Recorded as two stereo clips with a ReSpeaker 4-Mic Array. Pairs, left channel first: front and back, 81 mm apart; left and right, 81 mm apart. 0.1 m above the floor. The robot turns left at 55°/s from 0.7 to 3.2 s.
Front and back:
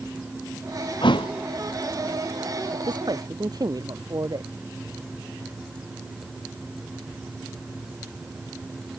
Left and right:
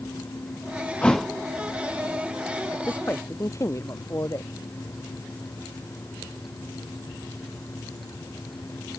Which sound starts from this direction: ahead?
A thud, at 1.0 s.